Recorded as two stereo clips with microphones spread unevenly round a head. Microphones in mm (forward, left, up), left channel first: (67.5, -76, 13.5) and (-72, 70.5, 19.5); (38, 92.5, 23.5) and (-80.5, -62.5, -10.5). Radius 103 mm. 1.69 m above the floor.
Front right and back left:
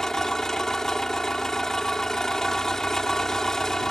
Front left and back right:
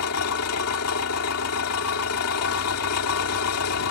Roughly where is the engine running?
Ahead left.